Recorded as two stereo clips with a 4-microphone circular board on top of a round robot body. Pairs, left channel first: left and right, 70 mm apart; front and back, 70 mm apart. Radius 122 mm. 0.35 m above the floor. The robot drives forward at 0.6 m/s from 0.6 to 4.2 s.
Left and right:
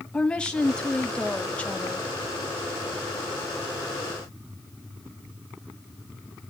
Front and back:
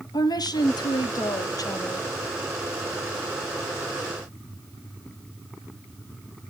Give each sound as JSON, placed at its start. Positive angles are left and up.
{"t": 0.1, "sound": "a woman speaking", "azimuth_deg": 15, "distance_m": 3.0}